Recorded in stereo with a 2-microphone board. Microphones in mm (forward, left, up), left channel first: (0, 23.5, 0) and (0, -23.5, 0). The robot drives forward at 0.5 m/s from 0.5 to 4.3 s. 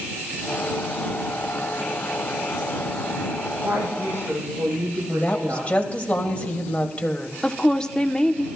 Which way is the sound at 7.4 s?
15° left (ahead or behind).